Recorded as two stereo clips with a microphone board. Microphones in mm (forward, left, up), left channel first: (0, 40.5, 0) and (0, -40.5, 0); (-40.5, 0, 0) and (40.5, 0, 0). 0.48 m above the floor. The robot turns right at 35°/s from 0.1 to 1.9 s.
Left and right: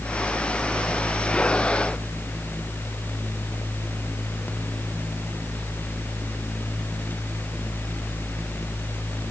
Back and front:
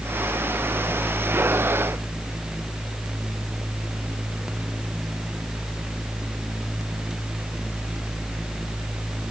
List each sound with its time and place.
Only background noise.